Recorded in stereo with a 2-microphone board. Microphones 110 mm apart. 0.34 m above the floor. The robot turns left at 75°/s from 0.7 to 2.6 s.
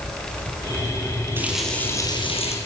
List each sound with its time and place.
1.4 s a running tap: 160° right, 5 m; by 2.6 s 110° left, 5 m